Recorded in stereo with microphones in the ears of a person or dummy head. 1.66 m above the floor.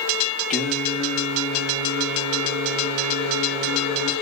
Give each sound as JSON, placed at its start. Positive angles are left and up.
{"t": 0.5, "sound": "singing", "side_deg": 5, "distance_m": 0.9}